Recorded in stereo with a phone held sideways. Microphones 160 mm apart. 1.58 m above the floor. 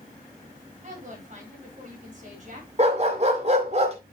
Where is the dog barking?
45° right (ahead or behind), 2 m.